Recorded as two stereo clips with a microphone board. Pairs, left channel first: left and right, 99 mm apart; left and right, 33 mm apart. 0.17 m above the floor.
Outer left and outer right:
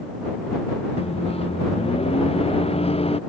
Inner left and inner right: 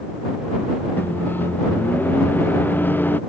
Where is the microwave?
80° left.